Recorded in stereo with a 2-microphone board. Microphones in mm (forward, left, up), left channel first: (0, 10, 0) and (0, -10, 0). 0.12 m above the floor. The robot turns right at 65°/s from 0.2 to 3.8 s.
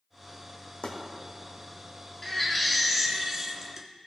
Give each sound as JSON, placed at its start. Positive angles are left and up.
{"t": 0.8, "sound": "chopping", "side_deg": 80, "distance_m": 2.0}
{"t": 2.2, "sound": "a baby crying", "side_deg": 15, "distance_m": 1.3}